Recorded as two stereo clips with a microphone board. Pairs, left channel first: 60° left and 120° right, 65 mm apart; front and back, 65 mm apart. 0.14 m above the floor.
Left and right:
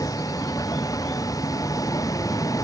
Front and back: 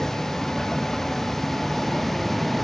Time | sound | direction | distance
0.0 | a vehicle | 85° left | ?